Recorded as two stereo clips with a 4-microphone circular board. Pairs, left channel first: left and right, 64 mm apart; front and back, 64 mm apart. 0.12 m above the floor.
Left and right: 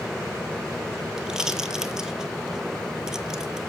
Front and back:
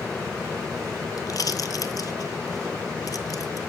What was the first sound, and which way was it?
A pop, 10° right.